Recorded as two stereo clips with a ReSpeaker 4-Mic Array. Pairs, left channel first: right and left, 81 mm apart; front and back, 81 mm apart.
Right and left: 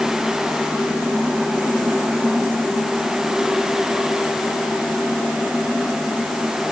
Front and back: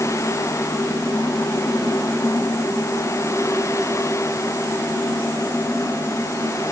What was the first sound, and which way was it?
Only background noise.